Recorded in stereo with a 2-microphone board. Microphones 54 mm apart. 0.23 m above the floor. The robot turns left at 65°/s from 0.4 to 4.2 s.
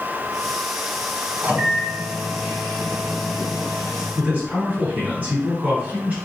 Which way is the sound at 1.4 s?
115° right.